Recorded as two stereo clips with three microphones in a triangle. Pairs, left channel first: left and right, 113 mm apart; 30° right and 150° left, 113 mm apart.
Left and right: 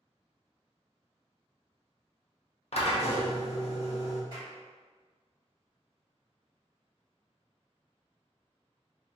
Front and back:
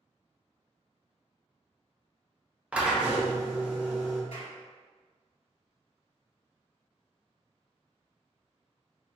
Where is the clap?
40° right, 1.7 m.